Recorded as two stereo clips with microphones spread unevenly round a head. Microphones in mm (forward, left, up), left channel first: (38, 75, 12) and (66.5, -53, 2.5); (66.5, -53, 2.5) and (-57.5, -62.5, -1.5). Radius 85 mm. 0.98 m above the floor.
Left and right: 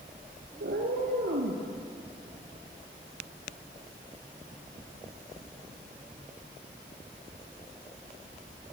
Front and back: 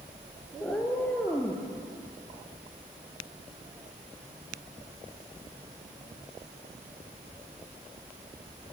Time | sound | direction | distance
0.6 | a cat meowing | 70° right | 4 m